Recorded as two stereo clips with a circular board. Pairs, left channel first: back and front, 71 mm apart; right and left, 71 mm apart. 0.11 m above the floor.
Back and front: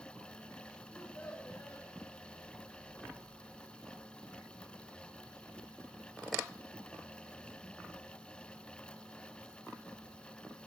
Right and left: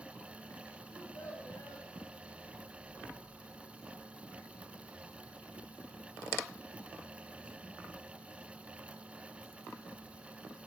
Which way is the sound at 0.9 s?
120° right.